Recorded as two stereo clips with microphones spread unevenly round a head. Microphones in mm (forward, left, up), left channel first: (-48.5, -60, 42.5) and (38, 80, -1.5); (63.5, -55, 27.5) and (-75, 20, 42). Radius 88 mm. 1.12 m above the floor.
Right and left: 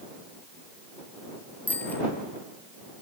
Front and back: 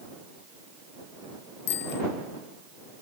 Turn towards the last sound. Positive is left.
turn(degrees=-40)